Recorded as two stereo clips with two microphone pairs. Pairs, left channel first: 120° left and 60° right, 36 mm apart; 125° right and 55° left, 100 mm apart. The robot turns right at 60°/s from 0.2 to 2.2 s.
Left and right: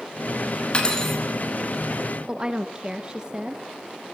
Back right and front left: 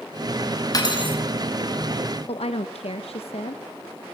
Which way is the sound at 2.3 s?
125° right.